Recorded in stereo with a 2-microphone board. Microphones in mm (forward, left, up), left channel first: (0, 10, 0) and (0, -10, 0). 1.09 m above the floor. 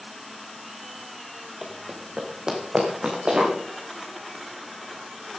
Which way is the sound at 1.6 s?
10° right (ahead or behind).